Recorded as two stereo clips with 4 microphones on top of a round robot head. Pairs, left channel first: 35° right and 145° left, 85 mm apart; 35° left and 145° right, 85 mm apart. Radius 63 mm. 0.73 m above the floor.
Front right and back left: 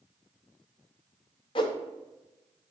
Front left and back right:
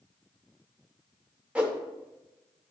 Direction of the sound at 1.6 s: 70° right.